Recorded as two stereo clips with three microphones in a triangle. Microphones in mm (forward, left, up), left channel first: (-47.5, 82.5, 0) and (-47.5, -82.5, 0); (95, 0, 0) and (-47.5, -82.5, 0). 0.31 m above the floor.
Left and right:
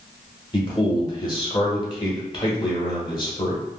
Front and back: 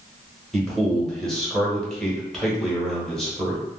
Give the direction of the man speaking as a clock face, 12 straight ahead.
8 o'clock.